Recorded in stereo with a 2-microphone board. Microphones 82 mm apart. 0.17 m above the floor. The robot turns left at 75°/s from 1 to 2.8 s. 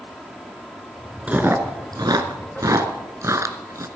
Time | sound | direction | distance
1.3 | chewing | 15° right (ahead or behind) | 1.3 m